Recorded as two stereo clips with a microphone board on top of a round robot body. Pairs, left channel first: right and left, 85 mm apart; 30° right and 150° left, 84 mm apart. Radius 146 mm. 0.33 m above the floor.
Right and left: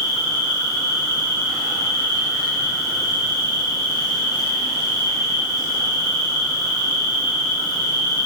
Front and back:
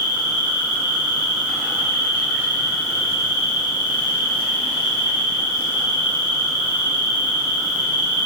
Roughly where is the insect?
Left.